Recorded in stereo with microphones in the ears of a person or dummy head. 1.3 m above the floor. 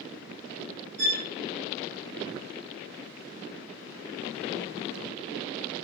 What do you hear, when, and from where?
1.0 s a violin: 70° right (ahead or behind), 4 m